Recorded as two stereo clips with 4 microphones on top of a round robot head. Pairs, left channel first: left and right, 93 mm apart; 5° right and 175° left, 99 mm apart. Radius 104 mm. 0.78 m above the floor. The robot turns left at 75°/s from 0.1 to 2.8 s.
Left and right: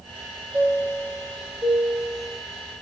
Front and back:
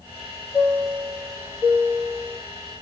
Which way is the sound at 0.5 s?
45° right.